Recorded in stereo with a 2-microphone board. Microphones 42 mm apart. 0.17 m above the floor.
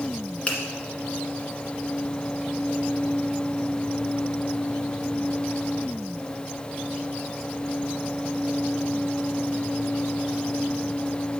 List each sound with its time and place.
0.5 s a finger snap: 25° left (ahead or behind), 1.6 m